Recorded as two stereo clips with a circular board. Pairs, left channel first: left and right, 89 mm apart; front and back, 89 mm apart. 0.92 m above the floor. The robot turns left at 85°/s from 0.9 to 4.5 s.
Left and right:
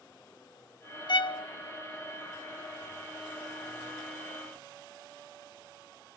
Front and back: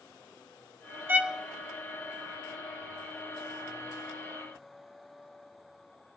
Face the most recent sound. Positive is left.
turn(degrees=-175)